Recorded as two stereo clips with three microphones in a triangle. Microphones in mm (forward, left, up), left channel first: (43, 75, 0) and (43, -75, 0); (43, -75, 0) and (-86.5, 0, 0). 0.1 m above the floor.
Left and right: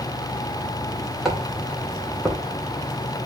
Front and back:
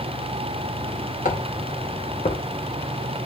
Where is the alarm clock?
No alarm clock in this recording.